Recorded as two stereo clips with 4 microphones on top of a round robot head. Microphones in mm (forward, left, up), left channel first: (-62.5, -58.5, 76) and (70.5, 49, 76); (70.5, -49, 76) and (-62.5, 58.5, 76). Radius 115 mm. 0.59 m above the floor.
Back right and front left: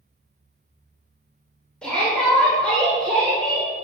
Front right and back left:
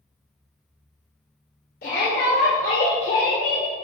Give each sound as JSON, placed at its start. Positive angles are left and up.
{"t": 1.8, "sound": "a shout", "azimuth_deg": -60, "distance_m": 3.0}